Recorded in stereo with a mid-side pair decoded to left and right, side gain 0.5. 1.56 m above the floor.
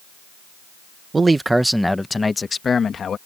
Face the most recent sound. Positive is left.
turn(degrees=45)